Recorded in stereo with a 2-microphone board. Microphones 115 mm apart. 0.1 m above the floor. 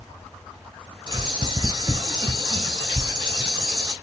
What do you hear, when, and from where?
1.1 s a bird: 35° right (ahead or behind), 1.4 m